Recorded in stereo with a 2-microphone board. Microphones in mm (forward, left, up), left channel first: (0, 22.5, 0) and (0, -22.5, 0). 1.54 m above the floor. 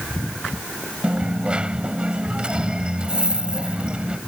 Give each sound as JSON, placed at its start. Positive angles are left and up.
{"t": 1.0, "sound": "a dropped coin", "side_deg": -20}